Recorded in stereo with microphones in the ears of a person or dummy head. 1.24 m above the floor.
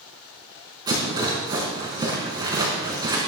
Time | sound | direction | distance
0.9 | a rattle | 20° right (ahead or behind) | 4 m